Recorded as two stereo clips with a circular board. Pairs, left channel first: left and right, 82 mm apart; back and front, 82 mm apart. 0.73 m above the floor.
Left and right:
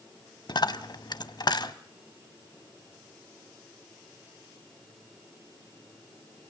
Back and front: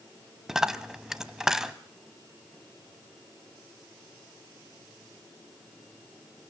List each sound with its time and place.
0.5 s a dropped coin: 85° left, 0.9 m